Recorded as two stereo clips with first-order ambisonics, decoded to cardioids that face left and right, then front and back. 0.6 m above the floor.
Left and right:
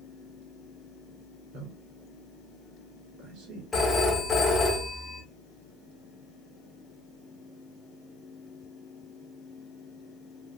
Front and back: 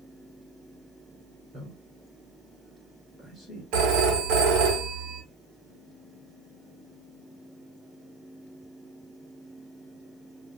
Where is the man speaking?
110° right, 2.5 m.